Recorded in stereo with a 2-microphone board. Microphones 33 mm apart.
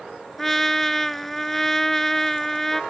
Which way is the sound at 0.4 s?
5° left (ahead or behind).